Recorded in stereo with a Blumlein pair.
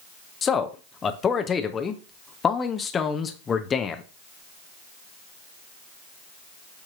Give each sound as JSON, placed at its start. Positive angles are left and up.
{"t": 0.4, "sound": "a man speaking", "azimuth_deg": 20, "distance_m": 0.7}